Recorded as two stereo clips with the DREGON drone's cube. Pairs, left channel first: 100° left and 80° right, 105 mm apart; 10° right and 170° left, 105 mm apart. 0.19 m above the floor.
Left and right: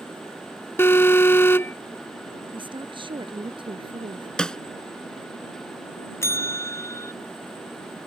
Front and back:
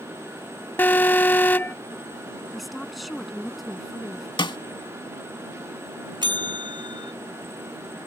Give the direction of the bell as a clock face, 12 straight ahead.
7 o'clock.